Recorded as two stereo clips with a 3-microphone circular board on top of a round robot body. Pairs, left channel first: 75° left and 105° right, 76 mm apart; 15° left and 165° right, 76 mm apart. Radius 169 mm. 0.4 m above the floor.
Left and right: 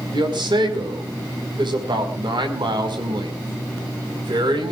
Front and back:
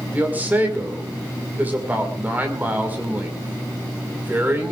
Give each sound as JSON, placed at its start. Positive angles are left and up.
{"t": 0.1, "sound": "a man speaking", "azimuth_deg": -95, "distance_m": 5.0}